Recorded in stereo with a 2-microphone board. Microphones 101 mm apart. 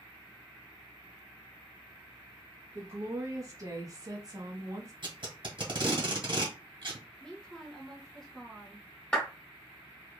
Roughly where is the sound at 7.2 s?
Centre.